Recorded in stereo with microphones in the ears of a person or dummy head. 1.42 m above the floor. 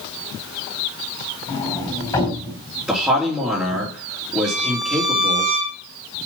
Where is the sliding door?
20° left (ahead or behind), 3.5 m.